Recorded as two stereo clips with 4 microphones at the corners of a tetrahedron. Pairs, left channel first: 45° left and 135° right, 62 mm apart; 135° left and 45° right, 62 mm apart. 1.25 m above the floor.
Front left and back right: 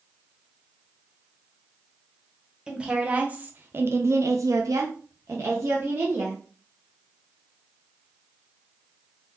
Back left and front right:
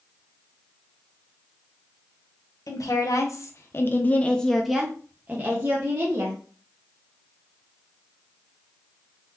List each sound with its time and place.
2.7 s a woman speaking: 150° left, 1.0 m; by 6.4 s 85° right, 1.2 m